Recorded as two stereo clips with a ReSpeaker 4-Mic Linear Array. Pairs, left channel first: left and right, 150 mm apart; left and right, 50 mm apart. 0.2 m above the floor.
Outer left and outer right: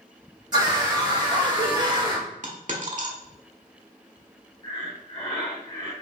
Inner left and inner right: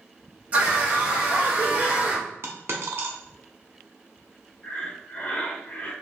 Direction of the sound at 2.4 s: 55° right (ahead or behind).